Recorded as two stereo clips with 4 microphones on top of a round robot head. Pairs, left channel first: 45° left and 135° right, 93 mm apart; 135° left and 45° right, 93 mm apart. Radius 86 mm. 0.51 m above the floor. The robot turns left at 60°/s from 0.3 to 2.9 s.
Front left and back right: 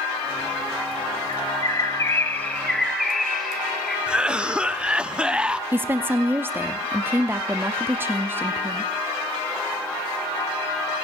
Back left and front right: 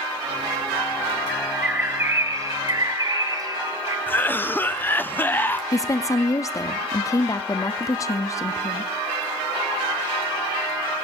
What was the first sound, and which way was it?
A bird, 50° left.